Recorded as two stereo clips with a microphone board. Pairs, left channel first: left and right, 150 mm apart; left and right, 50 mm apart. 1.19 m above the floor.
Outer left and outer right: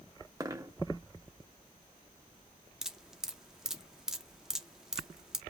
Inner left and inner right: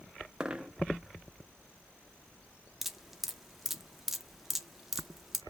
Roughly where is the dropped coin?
Right.